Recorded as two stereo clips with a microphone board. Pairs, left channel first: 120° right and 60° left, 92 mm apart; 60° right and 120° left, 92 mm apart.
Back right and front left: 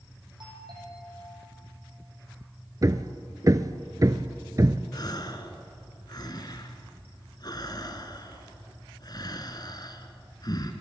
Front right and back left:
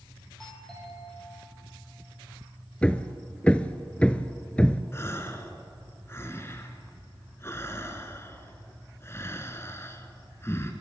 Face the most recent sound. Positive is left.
turn(degrees=-110)